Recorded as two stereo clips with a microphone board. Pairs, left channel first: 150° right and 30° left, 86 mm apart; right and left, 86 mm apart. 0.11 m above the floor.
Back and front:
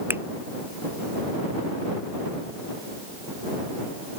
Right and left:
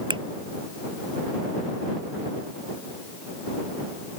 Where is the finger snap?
95° left.